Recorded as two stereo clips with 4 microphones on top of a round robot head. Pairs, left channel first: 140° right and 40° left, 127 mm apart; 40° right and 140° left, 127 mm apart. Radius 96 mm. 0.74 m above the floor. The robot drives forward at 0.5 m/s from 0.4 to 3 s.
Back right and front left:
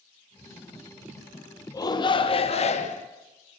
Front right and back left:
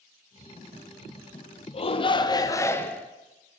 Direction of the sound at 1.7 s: 80° right.